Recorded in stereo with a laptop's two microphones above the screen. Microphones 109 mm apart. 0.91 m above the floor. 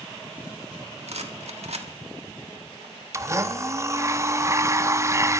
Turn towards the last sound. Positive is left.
turn(degrees=-30)  # may be behind; listen again after turning